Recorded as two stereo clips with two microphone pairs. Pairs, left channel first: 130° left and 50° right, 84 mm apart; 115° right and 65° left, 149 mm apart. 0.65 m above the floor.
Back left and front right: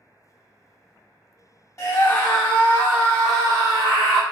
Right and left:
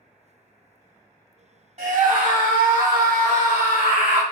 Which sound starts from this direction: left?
A scream, at 1.8 s.